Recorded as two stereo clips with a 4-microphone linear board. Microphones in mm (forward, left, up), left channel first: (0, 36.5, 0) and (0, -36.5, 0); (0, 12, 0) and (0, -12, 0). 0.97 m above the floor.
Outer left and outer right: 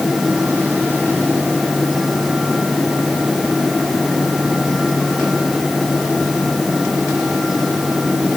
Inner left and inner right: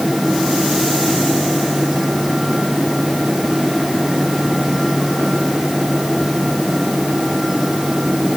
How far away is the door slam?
No door slam in this recording.